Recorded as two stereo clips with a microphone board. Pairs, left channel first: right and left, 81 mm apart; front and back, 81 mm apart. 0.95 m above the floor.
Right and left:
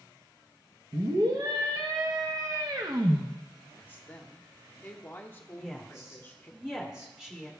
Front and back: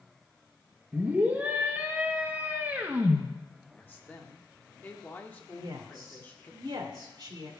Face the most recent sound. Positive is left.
turn(degrees=170)